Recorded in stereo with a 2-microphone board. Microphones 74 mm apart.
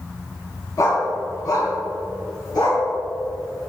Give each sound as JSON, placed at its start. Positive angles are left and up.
{"t": 0.8, "sound": "a dog barking", "side_deg": 50, "distance_m": 2.5}